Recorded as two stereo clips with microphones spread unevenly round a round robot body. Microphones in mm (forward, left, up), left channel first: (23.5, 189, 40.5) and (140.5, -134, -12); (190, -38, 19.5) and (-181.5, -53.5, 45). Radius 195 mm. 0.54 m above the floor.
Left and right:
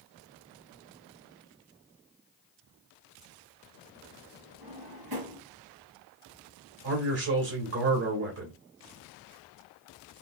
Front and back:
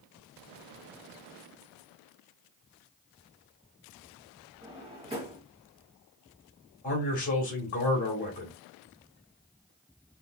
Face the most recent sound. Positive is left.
turn(degrees=-55)